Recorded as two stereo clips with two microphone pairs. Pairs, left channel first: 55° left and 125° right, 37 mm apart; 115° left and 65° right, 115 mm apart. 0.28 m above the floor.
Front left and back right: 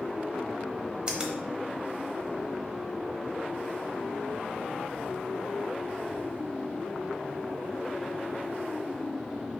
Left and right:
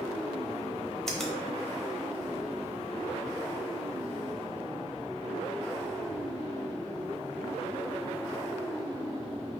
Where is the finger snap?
165° right, 1.0 m.